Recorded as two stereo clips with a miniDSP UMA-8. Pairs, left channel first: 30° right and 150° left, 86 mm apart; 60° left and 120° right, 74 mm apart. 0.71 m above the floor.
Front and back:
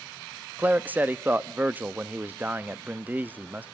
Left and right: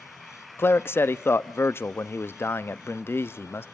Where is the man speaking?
95° left, 0.6 m.